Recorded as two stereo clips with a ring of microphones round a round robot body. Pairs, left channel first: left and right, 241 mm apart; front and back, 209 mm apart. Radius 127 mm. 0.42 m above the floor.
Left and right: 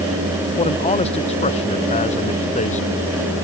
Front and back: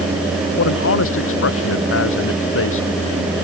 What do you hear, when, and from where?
0.6 s a man speaking: 20° left; by 2.9 s 25° left